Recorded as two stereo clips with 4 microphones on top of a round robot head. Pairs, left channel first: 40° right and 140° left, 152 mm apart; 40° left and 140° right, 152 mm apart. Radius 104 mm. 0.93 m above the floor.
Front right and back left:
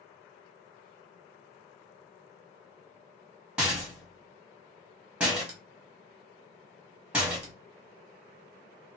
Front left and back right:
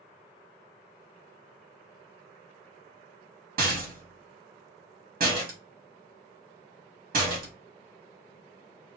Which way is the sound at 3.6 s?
140° right.